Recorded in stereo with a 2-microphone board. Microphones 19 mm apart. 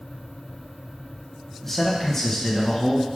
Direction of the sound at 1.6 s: 10° left (ahead or behind).